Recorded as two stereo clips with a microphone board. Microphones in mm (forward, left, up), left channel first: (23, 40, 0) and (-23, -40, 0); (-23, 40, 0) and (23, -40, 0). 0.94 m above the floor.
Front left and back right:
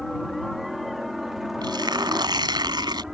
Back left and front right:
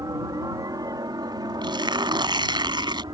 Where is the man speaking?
No man speaking in this recording.